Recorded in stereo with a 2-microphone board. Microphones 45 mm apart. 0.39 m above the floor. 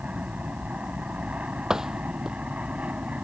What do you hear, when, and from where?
0.0 s an aircraft: 30° right (ahead or behind)
1.7 s a door slam: 15° right (ahead or behind)